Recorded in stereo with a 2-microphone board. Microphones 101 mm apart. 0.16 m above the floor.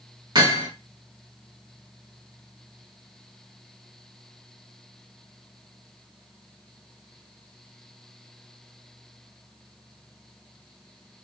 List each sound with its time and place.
0.3 s hammering: 45° right (ahead or behind), 2 m